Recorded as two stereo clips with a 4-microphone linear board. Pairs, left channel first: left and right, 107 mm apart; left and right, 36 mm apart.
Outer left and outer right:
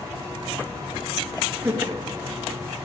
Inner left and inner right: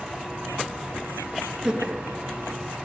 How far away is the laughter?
About 2.5 m.